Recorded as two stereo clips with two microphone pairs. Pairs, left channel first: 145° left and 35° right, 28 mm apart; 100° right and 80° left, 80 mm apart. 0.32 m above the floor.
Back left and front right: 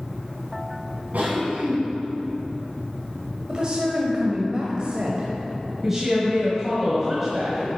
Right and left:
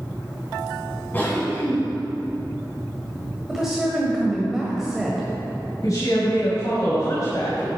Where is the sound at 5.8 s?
110° right, 1.9 m.